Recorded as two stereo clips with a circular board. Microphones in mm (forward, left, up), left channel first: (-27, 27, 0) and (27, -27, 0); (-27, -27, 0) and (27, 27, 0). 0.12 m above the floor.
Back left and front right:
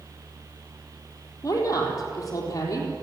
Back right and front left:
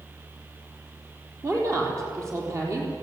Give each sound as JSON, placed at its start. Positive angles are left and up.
{"t": 1.4, "sound": "a woman speaking", "azimuth_deg": 95, "distance_m": 4.5}